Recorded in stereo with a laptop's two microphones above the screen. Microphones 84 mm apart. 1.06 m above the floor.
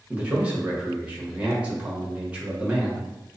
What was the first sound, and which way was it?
A man speaking, 15° right (ahead or behind).